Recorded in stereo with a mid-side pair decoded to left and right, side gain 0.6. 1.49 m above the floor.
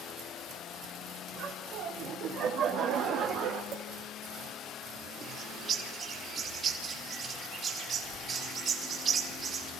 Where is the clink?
55° right, 5.5 m.